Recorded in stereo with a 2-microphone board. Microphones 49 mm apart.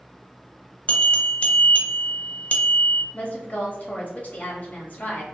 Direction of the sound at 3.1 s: 40° left (ahead or behind).